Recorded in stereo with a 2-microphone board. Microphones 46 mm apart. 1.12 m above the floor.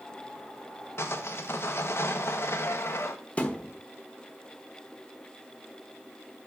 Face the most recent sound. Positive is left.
turn(degrees=25)  # may be behind; listen again after turning